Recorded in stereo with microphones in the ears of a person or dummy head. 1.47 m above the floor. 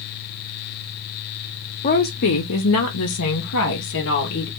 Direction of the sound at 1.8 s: 40° left (ahead or behind).